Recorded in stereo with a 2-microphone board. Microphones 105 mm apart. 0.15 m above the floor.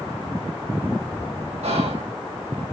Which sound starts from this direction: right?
Whispering, at 1.6 s.